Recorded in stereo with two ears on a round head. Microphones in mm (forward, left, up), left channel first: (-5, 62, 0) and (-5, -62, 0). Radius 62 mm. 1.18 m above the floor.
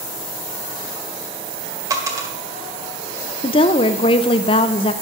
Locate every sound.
1.9 s a dropped coin: 25° right (ahead or behind), 1.8 m
3.4 s a woman speaking: 40° left (ahead or behind), 0.7 m